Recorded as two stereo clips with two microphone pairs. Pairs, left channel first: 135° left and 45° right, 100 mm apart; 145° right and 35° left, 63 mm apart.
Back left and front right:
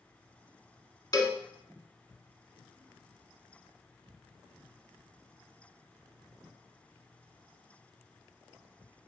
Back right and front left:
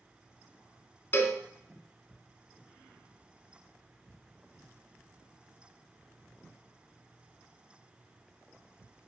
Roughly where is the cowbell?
Behind.